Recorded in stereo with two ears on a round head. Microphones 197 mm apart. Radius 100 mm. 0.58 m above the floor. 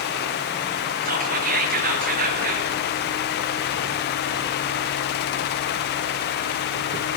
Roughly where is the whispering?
Right.